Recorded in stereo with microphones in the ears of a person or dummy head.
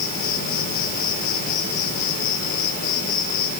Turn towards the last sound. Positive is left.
turn(degrees=45)  # may be behind; listen again after turning